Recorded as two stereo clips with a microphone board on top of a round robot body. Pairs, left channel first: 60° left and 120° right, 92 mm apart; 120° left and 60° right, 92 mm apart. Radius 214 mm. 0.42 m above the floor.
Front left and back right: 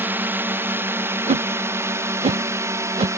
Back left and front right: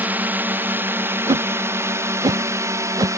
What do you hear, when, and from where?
0.0 s a drone: 95° right; by 3.2 s 85° right
1.3 s a whoosh: 105° right